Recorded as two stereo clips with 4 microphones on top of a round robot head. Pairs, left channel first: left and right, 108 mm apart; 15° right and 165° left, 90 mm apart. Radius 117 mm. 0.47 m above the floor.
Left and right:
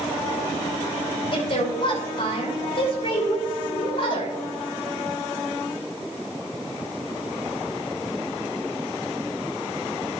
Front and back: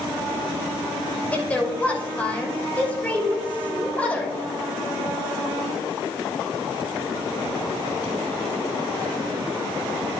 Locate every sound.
1.3 s a woman speaking: 60° left, 3 m